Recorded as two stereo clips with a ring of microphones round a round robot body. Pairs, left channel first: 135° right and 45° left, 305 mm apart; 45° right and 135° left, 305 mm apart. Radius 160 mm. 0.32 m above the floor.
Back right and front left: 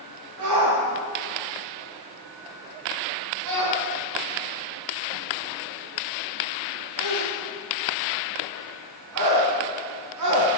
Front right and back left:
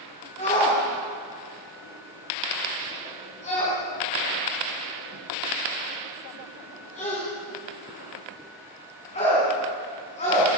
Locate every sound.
0.4 s a shout: 25° left, 4 m